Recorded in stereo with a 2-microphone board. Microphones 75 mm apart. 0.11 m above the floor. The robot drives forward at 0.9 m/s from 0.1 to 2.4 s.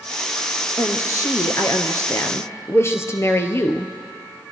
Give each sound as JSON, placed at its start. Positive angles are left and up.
{"t": 0.8, "sound": "a woman speaking", "side_deg": 40, "distance_m": 1.5}